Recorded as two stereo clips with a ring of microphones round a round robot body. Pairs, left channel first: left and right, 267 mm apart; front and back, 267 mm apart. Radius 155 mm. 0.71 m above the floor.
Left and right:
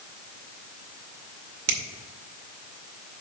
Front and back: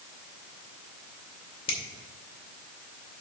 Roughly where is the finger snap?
Right.